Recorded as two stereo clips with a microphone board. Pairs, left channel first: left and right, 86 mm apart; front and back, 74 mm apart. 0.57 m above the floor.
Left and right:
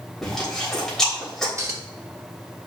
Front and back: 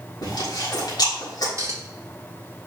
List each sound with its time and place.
0.2 s chewing: 5° left, 3.5 m
1.6 s a clink: 140° right, 1.1 m